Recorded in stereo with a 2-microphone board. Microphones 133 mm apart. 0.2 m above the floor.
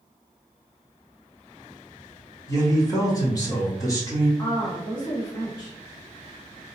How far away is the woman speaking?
About 1.7 m.